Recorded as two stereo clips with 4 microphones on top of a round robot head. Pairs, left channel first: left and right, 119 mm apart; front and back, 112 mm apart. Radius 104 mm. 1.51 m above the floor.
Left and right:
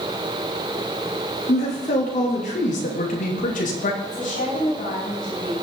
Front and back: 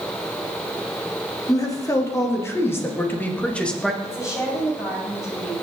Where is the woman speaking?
60° left, 7.5 m.